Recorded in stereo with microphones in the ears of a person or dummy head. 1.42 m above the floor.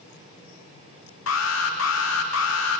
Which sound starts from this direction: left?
An alarm, at 1.3 s.